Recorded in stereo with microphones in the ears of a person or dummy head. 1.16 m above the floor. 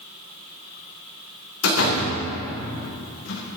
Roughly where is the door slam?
Left.